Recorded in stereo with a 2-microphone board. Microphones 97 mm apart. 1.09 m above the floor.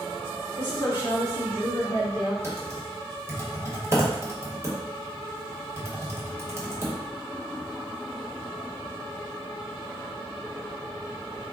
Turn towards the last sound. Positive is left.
turn(degrees=-25)  # may be behind; listen again after turning